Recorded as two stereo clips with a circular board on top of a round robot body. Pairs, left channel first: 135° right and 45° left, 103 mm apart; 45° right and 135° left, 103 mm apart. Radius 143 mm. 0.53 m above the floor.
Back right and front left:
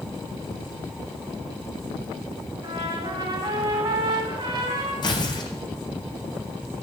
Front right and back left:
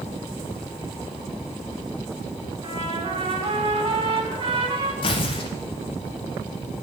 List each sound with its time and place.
2.6 s a trumpet: 90° left, 3 m
5.0 s tearing paper: 85° right, 0.6 m